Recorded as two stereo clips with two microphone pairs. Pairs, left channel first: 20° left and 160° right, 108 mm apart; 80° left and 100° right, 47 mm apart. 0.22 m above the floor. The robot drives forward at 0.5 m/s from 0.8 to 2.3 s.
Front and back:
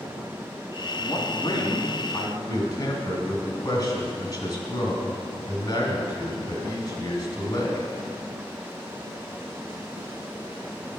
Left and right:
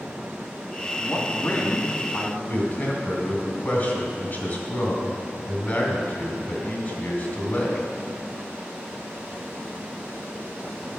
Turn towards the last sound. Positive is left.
turn(degrees=55)